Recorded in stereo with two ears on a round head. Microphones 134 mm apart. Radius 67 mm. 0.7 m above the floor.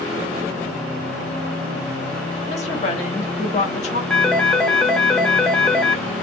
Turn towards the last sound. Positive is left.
turn(degrees=0)  # may be behind; listen again after turning